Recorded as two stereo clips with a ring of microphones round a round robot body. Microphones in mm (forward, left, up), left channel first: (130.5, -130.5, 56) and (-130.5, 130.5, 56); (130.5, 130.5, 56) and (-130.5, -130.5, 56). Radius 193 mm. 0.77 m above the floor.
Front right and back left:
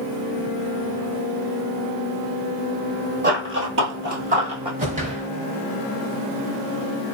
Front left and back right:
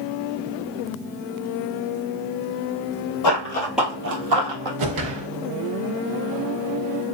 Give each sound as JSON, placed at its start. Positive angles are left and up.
{"t": 3.2, "sound": "running footsteps", "azimuth_deg": 75, "distance_m": 1.1}
{"t": 4.8, "sound": "a whoosh", "azimuth_deg": -155, "distance_m": 0.9}